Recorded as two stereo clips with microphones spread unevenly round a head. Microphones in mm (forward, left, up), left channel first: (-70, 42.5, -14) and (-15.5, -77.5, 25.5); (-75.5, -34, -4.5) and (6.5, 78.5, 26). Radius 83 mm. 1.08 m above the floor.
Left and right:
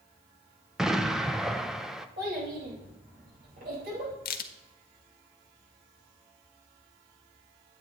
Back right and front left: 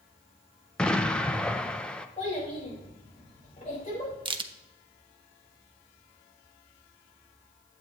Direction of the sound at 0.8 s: Straight behind.